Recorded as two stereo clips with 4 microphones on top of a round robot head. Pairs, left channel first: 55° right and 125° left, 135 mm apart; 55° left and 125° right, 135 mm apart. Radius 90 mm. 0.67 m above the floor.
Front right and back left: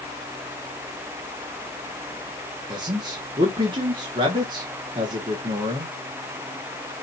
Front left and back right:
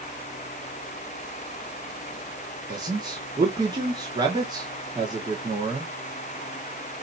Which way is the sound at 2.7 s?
175° left.